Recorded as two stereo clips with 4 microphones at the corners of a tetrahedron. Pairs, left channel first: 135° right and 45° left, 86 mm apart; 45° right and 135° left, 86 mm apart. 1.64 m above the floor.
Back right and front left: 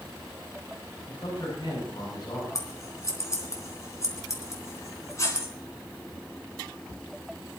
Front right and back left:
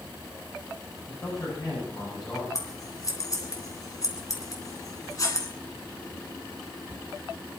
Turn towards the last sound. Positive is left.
turn(degrees=-85)